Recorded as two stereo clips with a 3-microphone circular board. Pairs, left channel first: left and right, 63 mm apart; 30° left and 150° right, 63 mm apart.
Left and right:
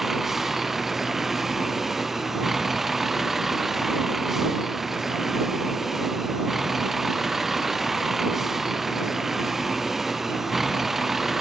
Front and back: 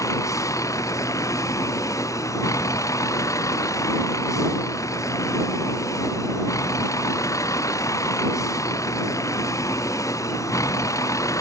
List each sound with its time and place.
0.0 s a vehicle: 5° right